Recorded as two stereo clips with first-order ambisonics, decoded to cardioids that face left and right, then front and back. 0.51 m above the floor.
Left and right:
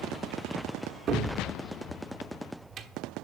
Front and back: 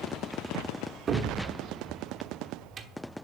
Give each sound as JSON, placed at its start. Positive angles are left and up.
{"t": 1.1, "sound": "a cupboard door", "azimuth_deg": -130, "distance_m": 1.1}